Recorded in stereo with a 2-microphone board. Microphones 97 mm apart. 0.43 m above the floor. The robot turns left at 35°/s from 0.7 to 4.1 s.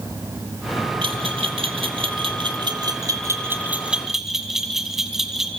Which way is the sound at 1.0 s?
65° right (ahead or behind).